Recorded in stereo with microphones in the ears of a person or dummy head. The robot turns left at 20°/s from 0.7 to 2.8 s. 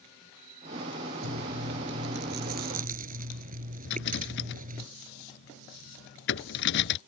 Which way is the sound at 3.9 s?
65° left (ahead or behind).